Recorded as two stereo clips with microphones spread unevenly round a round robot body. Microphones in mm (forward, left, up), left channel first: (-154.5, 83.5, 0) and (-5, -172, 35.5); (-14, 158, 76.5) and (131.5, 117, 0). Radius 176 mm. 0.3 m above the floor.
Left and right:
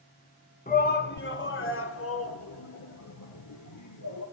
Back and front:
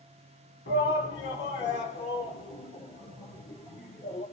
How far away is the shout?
About 2.5 m.